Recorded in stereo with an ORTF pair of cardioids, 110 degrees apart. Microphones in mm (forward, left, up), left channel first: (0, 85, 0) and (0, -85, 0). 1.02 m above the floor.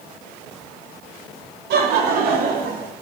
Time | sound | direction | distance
1.7 | laughter | 70° right | 2.5 m